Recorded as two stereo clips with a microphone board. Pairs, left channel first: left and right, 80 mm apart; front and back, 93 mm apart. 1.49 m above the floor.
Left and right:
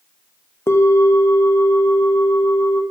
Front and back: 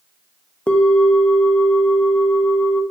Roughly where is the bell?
Left.